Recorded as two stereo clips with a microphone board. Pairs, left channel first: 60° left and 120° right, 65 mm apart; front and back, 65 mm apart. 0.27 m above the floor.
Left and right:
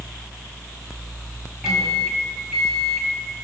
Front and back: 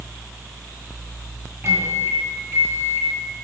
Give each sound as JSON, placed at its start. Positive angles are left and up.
{"t": 1.6, "sound": "a microwave", "azimuth_deg": 160, "distance_m": 1.4}